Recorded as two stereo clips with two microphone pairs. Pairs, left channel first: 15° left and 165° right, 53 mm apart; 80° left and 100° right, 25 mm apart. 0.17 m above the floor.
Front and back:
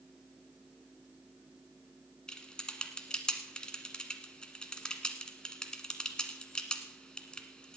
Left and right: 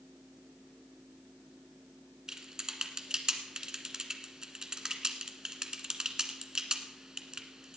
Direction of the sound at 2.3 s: 55° right.